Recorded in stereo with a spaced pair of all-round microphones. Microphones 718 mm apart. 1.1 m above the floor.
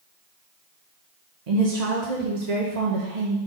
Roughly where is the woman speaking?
Right.